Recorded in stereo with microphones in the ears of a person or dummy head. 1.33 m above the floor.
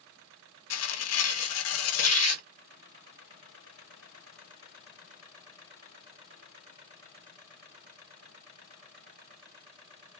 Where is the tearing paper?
85° left, 1.3 m.